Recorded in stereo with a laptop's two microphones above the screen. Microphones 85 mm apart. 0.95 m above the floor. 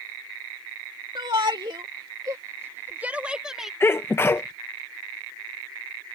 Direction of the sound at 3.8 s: 25° left (ahead or behind).